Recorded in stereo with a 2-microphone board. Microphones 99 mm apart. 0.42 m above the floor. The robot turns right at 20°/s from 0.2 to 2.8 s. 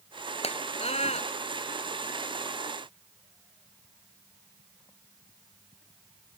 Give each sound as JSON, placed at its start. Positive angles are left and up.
{"t": 0.4, "sound": "a scream", "side_deg": 75}